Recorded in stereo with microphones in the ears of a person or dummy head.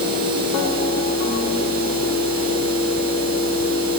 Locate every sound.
Only background noise.